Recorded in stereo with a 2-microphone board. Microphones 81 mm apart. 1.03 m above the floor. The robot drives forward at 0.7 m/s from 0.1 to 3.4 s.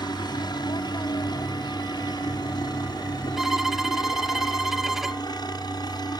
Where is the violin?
5° right (ahead or behind).